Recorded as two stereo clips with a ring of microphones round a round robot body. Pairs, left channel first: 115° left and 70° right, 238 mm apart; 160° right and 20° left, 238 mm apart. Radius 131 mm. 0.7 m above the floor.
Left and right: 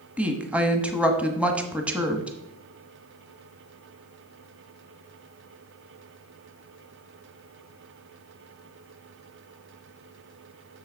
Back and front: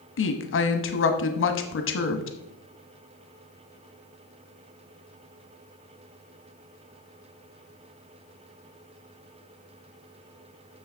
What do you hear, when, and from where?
0.2 s a woman speaking: 150° right, 1.0 m